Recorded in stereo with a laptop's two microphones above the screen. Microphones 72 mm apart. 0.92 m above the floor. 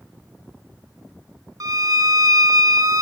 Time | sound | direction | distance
1.6 | a violin | 55° right (ahead or behind) | 0.8 m